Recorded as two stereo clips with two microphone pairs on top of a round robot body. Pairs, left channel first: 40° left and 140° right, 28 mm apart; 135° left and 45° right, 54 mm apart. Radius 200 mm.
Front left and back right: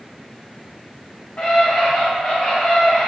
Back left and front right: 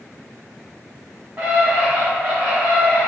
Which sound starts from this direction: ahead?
A scream, at 1.4 s.